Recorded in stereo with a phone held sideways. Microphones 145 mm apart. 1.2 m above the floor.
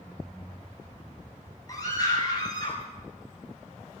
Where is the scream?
25° left (ahead or behind), 8.5 m; by 2.8 s 35° left (ahead or behind), 7.5 m.